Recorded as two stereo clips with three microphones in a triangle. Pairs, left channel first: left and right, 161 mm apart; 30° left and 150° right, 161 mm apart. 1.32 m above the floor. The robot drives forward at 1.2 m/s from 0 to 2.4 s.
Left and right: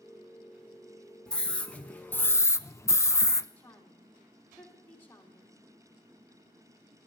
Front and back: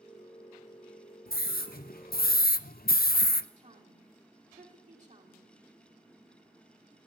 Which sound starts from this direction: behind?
A woman speaking, at 3.6 s.